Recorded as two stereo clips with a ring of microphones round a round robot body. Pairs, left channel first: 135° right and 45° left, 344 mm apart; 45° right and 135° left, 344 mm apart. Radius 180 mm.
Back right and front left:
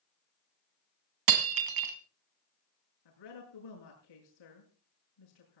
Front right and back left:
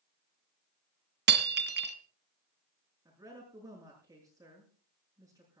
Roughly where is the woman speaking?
Behind right.